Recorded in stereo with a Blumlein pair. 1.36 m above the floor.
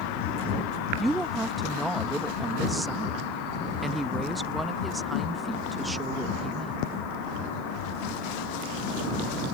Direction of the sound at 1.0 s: 5° right.